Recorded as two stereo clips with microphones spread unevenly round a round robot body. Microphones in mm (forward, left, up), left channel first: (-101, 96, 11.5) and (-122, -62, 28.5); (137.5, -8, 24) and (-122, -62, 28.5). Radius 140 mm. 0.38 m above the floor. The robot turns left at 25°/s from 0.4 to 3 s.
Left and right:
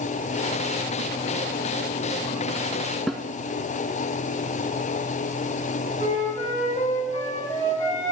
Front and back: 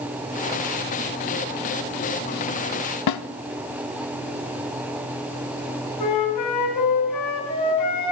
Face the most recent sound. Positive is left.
turn(degrees=20)